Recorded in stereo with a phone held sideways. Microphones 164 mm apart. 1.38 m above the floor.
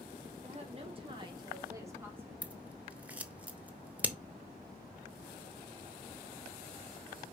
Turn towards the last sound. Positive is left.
turn(degrees=-10)  # may be behind; listen again after turning